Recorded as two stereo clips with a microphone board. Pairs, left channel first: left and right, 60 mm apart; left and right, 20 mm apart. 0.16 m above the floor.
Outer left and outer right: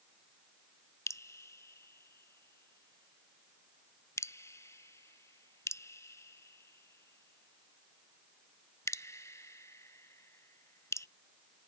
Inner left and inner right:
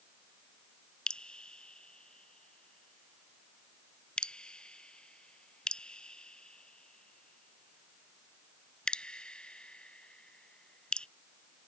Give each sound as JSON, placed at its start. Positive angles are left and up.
{"t": 1.1, "sound": "dripping", "side_deg": 55}